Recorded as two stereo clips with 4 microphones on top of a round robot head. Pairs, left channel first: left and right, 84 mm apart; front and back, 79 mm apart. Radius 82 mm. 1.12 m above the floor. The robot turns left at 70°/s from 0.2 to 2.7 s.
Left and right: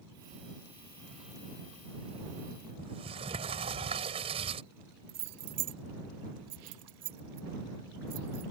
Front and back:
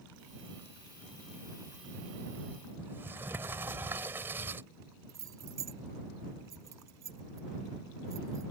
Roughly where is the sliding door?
Right.